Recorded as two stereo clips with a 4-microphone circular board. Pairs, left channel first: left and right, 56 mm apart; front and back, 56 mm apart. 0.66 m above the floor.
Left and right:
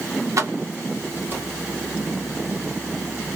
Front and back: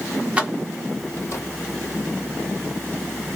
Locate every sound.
0.4 s keys jangling: 115° right, 0.8 m; by 1.4 s 35° right, 1.3 m